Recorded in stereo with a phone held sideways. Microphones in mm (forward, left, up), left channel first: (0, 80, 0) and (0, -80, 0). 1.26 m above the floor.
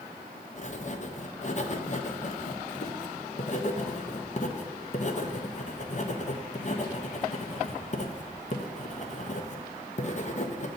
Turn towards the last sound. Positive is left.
turn(degrees=50)  # may be behind; listen again after turning